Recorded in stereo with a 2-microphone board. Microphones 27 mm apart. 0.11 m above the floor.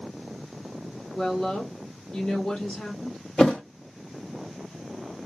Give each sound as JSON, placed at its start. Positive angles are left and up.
{"t": 1.1, "sound": "a woman speaking", "side_deg": 45, "distance_m": 2.5}
{"t": 3.4, "sound": "a thud", "side_deg": 40, "distance_m": 0.8}